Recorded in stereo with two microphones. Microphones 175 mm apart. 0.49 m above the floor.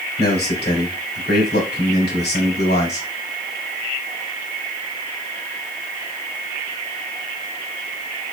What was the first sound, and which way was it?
A man speaking, 65° left (ahead or behind).